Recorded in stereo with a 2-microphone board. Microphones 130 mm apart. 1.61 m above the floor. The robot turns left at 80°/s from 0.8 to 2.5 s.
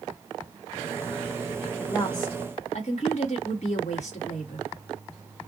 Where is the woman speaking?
175° left, 1.6 m; by 4.7 s 120° left, 1.6 m.